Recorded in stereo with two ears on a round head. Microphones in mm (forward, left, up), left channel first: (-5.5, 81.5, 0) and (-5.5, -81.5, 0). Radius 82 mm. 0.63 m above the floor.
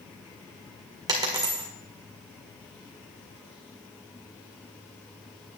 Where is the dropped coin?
20° right (ahead or behind), 1.8 m.